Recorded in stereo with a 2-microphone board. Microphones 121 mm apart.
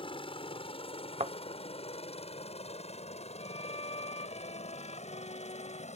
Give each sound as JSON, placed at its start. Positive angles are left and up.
{"t": 0.0, "sound": "a helicopter", "side_deg": 45}
{"t": 1.2, "sound": "a thud", "side_deg": -65}
{"t": 3.4, "sound": "a violin", "side_deg": 60}